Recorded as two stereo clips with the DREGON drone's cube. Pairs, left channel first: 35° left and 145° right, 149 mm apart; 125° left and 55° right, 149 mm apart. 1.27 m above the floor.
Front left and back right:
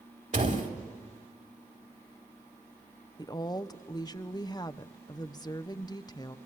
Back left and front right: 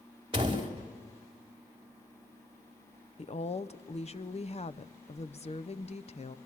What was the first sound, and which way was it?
A door slam, 115° right.